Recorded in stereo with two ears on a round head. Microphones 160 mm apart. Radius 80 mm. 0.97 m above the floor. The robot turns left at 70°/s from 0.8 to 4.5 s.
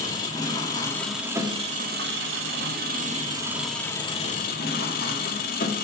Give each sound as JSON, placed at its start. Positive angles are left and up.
{"t": 0.0, "sound": "an engine running", "azimuth_deg": 20, "distance_m": 1.9}